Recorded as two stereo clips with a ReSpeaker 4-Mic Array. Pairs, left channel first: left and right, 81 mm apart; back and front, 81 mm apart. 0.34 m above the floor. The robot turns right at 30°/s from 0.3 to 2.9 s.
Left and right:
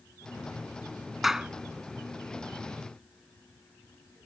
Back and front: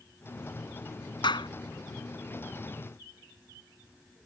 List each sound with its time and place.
1.2 s a clap: 175° right; by 1.5 s 170° right